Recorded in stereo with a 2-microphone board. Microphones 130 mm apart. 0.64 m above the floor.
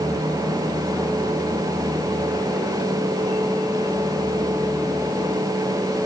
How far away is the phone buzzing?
I don't hear a phone buzzing.